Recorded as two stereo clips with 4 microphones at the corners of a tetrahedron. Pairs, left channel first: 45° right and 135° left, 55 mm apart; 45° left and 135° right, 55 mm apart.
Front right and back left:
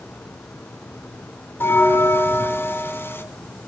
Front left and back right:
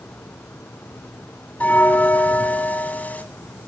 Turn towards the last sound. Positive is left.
turn(degrees=-10)